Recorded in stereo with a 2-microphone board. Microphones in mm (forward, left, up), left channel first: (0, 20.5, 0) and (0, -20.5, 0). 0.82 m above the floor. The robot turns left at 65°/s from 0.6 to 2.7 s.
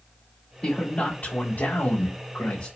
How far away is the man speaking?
About 2 m.